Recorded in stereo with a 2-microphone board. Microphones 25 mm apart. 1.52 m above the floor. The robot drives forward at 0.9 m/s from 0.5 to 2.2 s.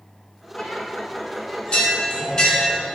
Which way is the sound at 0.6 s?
55° left (ahead or behind).